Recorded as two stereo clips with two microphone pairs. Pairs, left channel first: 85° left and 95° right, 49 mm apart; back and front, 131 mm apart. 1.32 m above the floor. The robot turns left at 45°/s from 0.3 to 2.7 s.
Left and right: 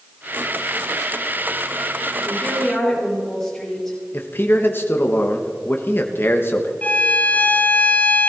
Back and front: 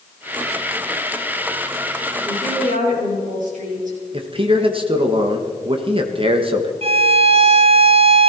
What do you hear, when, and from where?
2.2 s a woman speaking: 30° left, 7 m; by 4.0 s 10° left, 7 m
4.1 s a man speaking: 45° left, 1.3 m
6.8 s a violin: 30° left, 0.9 m